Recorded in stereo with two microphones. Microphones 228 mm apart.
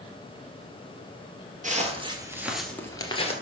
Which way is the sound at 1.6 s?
35° right (ahead or behind).